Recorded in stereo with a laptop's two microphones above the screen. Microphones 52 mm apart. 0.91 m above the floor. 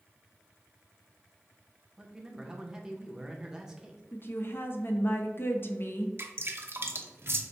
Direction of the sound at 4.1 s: 45° left (ahead or behind).